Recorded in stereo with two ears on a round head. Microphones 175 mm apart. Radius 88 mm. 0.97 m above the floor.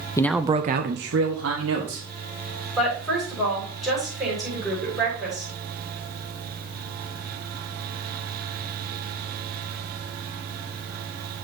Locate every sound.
0.2 s a man speaking: 15° left (ahead or behind), 0.7 m; by 2.0 s 70° right (ahead or behind), 2.5 m
2.8 s a woman speaking: centre (ahead or behind), 6 m